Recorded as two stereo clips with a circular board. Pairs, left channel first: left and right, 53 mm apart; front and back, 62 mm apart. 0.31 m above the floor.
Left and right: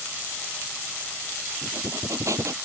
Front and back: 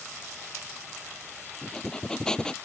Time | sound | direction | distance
1.6 | breathing | 80° right | ?